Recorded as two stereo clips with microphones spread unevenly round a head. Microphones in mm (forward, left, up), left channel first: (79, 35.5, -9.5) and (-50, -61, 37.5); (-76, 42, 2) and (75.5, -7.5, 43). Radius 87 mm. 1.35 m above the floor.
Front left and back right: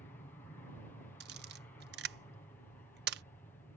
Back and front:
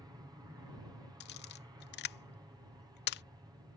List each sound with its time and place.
0.0 s an aircraft: 50° left
1.2 s a camera shutter: straight behind